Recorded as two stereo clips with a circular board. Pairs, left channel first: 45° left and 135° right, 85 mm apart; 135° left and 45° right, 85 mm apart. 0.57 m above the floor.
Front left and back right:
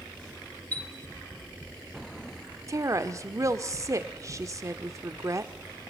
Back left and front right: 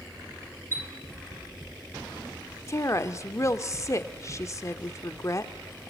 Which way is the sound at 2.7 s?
Straight behind.